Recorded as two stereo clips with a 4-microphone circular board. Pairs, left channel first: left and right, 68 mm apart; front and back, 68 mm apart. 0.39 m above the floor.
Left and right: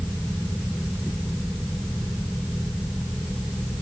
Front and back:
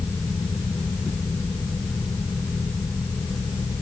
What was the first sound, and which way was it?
Only background noise.